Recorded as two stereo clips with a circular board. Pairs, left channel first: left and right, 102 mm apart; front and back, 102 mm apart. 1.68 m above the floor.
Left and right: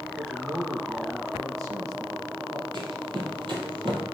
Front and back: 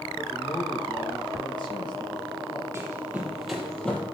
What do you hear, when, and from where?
0.2 s a man speaking: 35° right, 1.7 m
2.7 s running footsteps: 120° right, 3 m; by 4.0 s 70° right, 3 m